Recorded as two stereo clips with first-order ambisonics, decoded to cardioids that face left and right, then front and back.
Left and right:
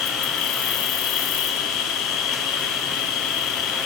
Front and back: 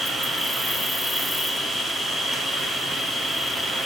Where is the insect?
85° left, 1.5 m.